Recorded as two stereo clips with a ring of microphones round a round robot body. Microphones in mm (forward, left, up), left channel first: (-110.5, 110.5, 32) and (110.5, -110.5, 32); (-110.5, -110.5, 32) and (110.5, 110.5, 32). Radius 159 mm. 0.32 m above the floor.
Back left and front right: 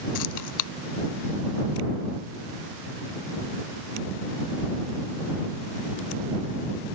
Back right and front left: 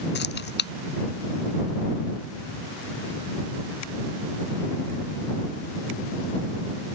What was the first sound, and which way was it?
Keys jangling, 165° left.